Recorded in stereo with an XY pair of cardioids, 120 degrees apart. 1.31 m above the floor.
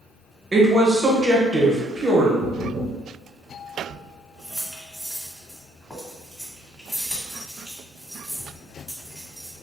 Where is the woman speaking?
20° right, 1.1 m.